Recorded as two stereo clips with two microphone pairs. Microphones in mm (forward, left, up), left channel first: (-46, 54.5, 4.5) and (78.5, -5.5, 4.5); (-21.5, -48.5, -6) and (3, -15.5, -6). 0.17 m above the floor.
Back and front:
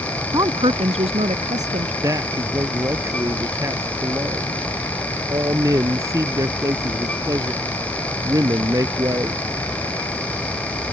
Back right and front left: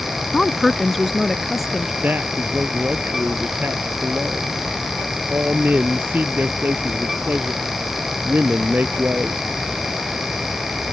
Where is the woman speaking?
55° right; by 1.9 s 30° right.